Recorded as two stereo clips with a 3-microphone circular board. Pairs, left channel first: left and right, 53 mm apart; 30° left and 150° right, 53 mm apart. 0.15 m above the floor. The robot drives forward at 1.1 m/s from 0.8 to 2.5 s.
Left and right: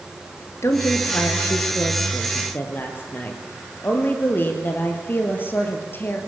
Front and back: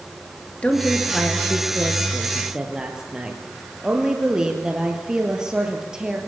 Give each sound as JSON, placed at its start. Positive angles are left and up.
{"t": 0.6, "sound": "a woman speaking", "azimuth_deg": 95, "distance_m": 2.5}